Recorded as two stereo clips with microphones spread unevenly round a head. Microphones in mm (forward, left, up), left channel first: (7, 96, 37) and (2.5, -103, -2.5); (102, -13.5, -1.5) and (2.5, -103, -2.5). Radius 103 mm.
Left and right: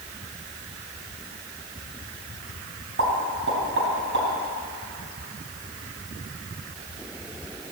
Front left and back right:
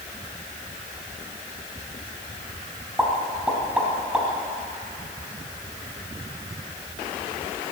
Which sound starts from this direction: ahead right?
A pop, at 3.0 s.